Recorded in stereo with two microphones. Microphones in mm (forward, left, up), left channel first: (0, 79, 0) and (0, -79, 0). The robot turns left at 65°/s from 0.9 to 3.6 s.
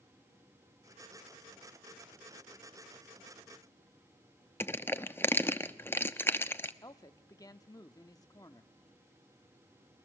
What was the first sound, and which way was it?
Crushing, 15° left (ahead or behind).